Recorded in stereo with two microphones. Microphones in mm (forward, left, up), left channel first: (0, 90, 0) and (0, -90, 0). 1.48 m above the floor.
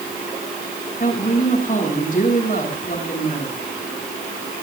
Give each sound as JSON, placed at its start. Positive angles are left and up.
{"t": 1.0, "sound": "a woman speaking", "side_deg": 50, "distance_m": 8.0}